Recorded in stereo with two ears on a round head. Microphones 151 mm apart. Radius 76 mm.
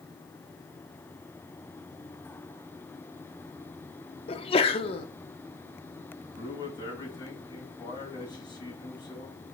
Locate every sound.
4.3 s a sneeze: 35° left (ahead or behind), 1.0 m
6.4 s a man speaking: 25° left (ahead or behind), 4 m